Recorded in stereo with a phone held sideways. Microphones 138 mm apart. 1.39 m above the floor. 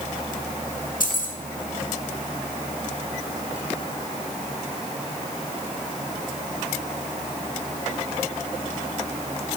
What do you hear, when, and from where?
1.0 s keys jangling: 80° left, 1.6 m